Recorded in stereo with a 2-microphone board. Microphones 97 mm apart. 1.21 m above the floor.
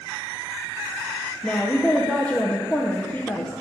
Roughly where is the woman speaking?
Centre.